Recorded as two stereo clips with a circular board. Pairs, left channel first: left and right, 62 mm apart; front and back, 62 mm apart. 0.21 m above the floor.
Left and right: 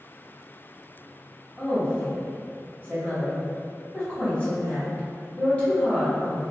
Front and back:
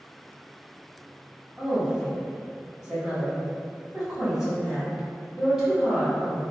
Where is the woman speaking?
105° left, 1.0 m.